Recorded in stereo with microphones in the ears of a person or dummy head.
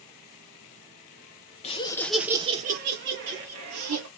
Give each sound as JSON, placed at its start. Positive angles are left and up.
{"t": 1.6, "sound": "laughter", "side_deg": 30, "distance_m": 0.6}